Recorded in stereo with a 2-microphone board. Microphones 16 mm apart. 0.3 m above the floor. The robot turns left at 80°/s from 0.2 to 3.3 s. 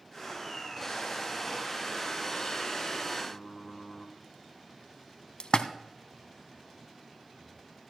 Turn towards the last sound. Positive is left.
turn(degrees=60)  # may be behind; listen again after turning